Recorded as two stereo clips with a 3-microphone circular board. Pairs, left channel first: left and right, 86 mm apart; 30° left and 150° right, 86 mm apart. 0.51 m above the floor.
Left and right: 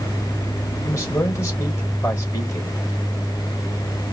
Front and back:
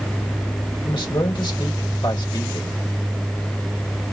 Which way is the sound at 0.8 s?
35° left.